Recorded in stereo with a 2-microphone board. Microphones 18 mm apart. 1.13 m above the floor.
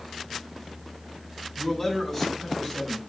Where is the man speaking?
15° left (ahead or behind), 7 m.